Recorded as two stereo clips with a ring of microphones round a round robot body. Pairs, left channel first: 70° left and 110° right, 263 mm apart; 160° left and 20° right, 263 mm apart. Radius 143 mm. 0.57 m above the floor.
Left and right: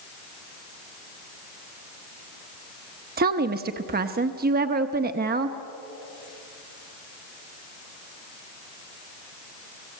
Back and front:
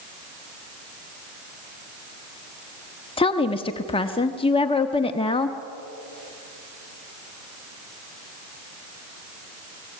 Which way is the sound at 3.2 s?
145° right.